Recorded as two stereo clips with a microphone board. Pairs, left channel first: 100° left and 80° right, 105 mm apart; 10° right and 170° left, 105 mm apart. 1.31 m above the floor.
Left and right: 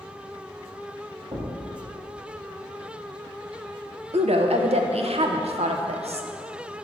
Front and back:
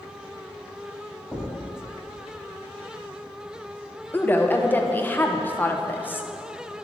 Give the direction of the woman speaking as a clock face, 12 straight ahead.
3 o'clock.